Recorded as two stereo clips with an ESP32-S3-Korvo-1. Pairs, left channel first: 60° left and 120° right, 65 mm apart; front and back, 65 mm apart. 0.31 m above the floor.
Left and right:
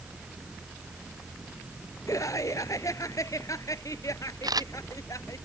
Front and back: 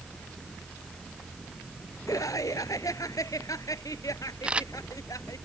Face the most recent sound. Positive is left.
turn(degrees=-105)